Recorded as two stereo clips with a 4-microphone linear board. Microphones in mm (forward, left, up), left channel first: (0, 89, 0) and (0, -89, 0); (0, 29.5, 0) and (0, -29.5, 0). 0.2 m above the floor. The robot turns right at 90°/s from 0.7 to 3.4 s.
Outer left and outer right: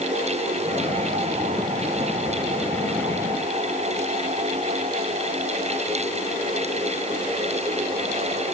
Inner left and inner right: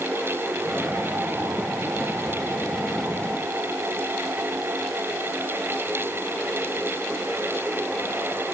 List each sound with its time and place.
Only background noise.